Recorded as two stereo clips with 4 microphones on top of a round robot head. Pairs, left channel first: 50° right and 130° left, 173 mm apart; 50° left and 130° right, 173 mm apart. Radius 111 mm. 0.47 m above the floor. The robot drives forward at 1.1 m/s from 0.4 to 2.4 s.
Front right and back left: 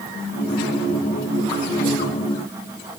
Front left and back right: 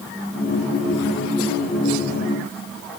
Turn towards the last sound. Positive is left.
No sound to turn to.